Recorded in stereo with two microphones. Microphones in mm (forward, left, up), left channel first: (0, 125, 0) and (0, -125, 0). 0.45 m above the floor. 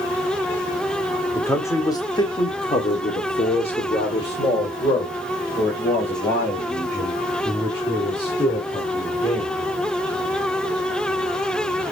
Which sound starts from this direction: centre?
A man speaking, at 1.4 s.